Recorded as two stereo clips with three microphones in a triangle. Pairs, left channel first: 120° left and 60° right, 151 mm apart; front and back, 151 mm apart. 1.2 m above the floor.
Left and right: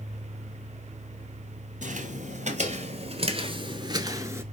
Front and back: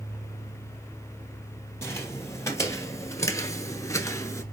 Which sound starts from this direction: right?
Footsteps, at 1.8 s.